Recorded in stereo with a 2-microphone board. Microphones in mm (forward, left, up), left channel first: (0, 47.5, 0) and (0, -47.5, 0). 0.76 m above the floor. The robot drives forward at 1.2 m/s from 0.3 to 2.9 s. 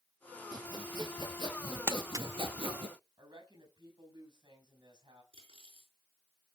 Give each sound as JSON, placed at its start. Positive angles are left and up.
{"t": 0.5, "sound": "sawing", "side_deg": -45, "distance_m": 4.5}
{"t": 1.9, "sound": "crumpling", "side_deg": -25, "distance_m": 0.8}
{"t": 3.2, "sound": "a woman speaking", "side_deg": -55, "distance_m": 5.5}
{"t": 5.3, "sound": "cutlery clinking", "side_deg": -80, "distance_m": 5.5}